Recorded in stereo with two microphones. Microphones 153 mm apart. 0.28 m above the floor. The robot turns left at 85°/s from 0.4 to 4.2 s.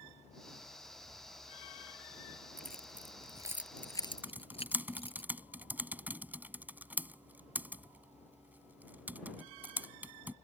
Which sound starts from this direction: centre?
Typing on a keyboard, at 4.2 s.